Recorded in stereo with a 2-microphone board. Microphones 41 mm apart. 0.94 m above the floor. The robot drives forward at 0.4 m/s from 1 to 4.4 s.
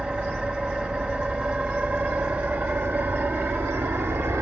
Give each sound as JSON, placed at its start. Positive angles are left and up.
{"t": 0.0, "sound": "an engine running", "side_deg": -30, "distance_m": 2.0}